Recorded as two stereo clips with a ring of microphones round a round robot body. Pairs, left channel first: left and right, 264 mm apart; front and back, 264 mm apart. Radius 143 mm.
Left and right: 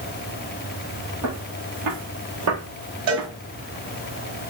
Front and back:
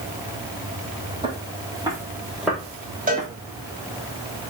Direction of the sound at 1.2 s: 110° right.